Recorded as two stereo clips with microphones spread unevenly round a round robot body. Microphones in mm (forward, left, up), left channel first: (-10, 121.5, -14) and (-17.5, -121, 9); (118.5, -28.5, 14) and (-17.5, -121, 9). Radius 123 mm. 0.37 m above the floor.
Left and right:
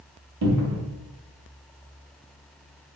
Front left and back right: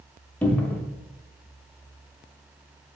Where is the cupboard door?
50° right, 0.6 m.